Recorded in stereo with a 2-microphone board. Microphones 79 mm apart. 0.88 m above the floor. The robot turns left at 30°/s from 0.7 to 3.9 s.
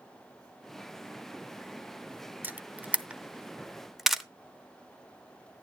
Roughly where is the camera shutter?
Right.